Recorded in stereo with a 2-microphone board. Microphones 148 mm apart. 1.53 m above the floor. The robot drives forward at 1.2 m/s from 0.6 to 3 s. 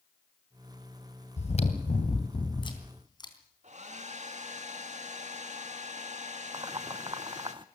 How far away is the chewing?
About 2 m.